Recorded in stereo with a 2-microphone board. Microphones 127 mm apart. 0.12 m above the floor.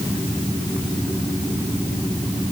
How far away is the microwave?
No microwave in this recording.